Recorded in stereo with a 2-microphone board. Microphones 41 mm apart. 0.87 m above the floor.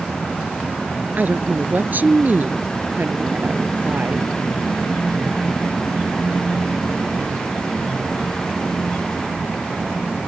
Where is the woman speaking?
45° right (ahead or behind); by 4.3 s 50° right (ahead or behind).